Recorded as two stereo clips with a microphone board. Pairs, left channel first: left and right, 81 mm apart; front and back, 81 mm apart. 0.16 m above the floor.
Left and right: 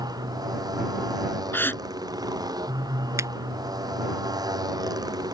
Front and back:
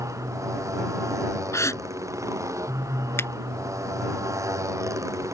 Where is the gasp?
35° left.